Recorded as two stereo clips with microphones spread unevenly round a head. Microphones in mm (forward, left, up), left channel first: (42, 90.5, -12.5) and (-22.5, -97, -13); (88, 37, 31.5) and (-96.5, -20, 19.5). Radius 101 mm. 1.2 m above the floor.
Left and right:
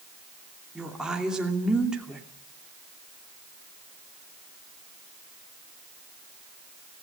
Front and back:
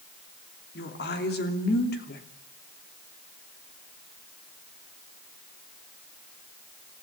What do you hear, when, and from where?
0.8 s a woman speaking: 20° right, 2.5 m